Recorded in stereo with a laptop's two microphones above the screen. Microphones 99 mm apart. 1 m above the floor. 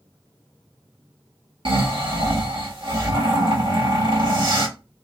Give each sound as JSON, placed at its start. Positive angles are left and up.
{"t": 1.6, "sound": "snoring", "side_deg": -55, "distance_m": 1.4}